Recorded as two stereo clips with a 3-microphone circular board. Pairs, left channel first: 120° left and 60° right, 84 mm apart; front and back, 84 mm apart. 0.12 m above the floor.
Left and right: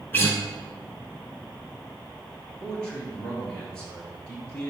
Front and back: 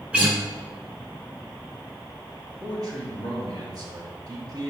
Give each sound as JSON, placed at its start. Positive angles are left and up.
{"t": 0.1, "sound": "a guitar", "azimuth_deg": 130, "distance_m": 1.1}
{"t": 2.6, "sound": "a man speaking", "azimuth_deg": -165, "distance_m": 1.8}